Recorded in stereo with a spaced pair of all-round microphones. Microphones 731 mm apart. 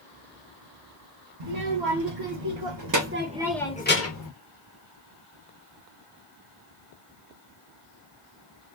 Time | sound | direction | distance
1.4 | a child speaking | 75° right (ahead or behind) | 1.1 m